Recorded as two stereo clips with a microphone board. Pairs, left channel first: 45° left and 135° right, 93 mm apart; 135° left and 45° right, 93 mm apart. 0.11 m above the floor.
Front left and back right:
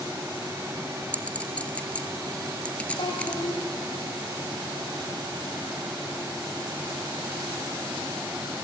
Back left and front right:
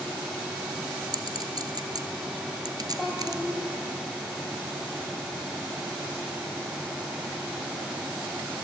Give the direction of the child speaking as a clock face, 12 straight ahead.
10 o'clock.